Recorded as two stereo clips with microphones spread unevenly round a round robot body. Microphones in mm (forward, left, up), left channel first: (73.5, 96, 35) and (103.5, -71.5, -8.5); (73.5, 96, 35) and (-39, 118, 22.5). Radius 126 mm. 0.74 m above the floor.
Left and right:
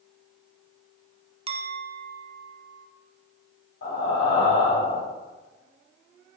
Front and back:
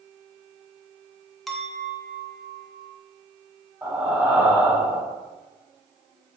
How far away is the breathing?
About 4.5 m.